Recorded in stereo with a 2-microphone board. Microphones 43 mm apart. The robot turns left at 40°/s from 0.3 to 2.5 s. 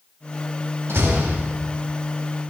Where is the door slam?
75° right (ahead or behind), 3.5 m.